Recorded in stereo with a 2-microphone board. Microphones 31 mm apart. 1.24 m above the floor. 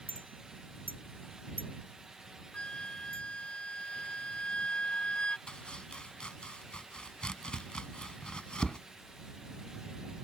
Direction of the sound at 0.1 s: 80° right.